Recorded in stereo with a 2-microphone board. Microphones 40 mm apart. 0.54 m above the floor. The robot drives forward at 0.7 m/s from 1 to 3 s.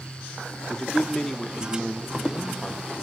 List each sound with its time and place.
0.7 s a man speaking: 15° left (ahead or behind), 0.8 m; by 2.9 s 10° left (ahead or behind), 1.5 m